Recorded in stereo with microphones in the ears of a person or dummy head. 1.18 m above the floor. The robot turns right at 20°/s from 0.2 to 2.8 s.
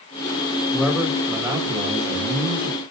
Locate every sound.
0.7 s a man speaking: 175° left, 4.5 m; by 2.8 s 145° right, 4.5 m